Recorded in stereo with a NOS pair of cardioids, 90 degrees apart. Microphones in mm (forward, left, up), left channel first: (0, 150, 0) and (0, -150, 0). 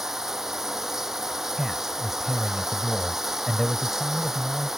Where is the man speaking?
Straight ahead.